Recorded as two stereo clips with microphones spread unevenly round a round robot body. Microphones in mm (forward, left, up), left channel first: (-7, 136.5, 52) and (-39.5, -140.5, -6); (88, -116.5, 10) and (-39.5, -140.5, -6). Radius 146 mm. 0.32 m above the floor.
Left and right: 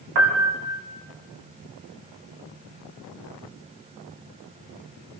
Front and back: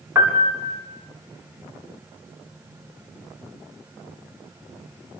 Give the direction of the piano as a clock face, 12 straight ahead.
3 o'clock.